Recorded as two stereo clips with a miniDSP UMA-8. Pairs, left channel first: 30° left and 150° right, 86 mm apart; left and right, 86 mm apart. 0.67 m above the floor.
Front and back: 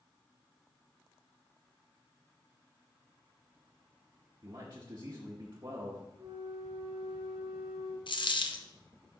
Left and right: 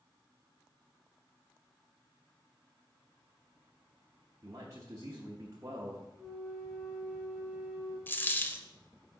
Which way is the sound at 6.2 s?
Straight behind.